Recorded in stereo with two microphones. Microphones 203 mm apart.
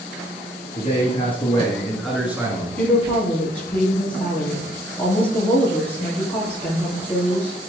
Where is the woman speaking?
10° left (ahead or behind), 2.5 m.